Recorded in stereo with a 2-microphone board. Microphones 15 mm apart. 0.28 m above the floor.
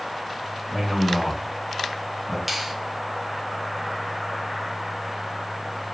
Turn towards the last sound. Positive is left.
turn(degrees=-10)  # may be behind; listen again after turning